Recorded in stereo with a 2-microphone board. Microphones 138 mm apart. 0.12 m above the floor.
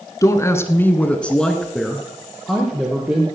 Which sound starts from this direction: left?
A woman speaking, at 0.2 s.